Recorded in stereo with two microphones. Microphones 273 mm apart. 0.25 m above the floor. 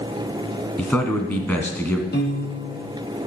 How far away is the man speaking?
About 2.0 m.